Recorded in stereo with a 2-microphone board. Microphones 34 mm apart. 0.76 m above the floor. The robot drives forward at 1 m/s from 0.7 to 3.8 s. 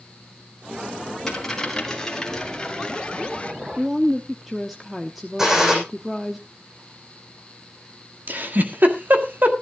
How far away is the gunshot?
About 6 m.